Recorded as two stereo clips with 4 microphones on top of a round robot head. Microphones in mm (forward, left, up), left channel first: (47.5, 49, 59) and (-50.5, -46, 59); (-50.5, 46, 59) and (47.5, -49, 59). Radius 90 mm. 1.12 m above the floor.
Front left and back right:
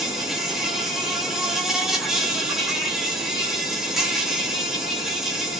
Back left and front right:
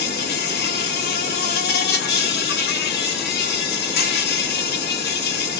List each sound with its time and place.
0.0 s an insect: 135° left, 0.8 m